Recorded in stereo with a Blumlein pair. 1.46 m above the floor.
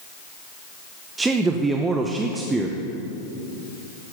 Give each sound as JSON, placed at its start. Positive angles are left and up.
{"t": 1.2, "sound": "a man speaking", "azimuth_deg": -10, "distance_m": 0.9}